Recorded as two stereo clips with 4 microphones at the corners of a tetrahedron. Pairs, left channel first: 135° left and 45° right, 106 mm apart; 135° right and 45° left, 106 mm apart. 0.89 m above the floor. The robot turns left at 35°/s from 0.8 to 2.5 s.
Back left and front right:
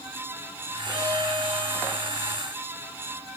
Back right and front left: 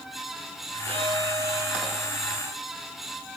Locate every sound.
0.9 s a violin: 15° left, 8 m; by 2.2 s 30° right, 8 m